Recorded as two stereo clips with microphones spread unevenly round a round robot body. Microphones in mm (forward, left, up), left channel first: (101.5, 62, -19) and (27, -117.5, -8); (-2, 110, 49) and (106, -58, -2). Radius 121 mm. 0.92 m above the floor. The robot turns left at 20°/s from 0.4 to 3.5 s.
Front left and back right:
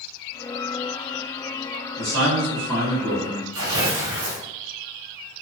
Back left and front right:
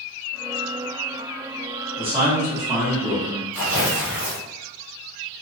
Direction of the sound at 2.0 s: 125° right.